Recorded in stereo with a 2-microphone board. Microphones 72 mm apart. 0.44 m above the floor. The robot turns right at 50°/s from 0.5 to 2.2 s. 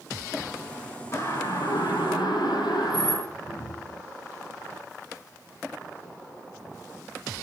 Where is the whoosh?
70° left (ahead or behind), 5.5 m.